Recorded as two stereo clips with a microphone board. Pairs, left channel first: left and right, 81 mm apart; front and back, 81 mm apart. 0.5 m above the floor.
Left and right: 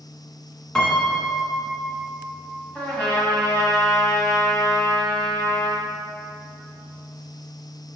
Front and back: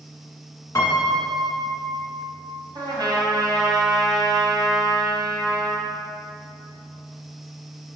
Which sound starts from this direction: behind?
A trumpet, at 2.8 s.